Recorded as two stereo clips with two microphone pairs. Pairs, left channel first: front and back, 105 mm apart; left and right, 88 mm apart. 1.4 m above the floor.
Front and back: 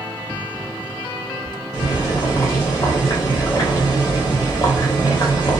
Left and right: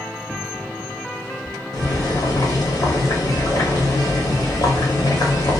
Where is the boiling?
55° left, 0.9 m.